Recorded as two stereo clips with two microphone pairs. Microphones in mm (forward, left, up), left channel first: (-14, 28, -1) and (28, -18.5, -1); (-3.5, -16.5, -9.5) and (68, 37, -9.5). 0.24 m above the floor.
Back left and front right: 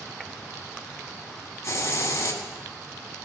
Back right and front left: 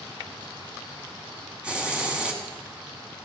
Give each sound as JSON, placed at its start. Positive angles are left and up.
{"t": 1.6, "sound": "a hiss", "azimuth_deg": 110, "distance_m": 1.6}